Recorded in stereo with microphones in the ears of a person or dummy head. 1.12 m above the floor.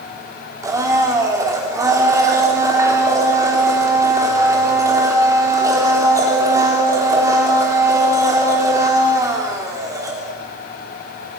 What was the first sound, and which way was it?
A blender, 15° right (ahead or behind).